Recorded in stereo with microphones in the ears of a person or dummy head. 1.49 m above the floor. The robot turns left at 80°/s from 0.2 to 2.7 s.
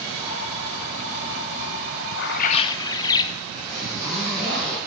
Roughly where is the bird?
Ahead left.